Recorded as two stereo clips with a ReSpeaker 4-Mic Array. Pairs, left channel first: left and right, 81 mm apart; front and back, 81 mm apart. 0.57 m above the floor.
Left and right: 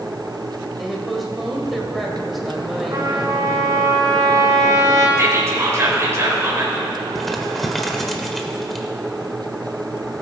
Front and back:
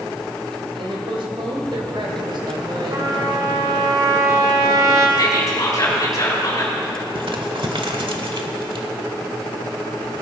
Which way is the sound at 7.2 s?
175° left.